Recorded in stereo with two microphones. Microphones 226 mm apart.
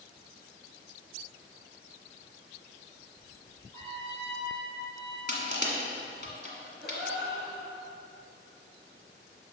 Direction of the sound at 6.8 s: Centre (ahead or behind).